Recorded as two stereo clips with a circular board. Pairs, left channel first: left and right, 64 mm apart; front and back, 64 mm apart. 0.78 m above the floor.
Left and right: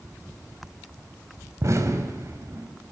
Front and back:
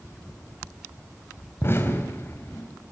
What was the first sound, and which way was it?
An explosion, 50° right.